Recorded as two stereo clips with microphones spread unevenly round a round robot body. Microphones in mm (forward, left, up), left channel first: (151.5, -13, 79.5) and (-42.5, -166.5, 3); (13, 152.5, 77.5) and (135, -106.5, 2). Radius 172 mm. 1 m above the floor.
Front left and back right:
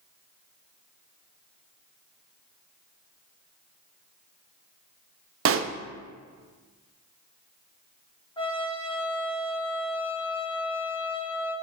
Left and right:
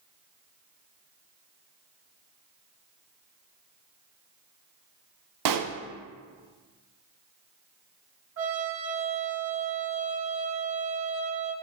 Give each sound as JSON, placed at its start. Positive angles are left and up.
{"t": 5.5, "sound": "a pop", "azimuth_deg": -100, "distance_m": 0.7}
{"t": 8.4, "sound": "a trumpet", "azimuth_deg": -40, "distance_m": 2.0}